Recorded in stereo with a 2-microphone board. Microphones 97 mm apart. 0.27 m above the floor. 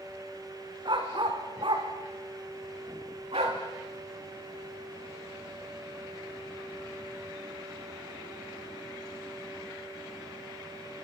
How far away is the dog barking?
About 5 m.